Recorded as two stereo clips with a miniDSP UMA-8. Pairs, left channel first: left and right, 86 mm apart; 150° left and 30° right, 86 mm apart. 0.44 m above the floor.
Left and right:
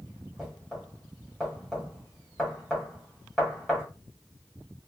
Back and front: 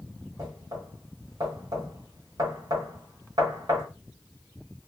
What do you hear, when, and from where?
0.4 s knocking: 5° left, 1.6 m